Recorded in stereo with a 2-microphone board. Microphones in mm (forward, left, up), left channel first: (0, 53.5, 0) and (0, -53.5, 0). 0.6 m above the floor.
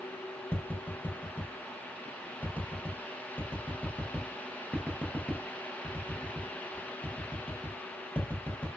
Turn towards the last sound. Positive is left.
turn(degrees=15)  # may be behind; listen again after turning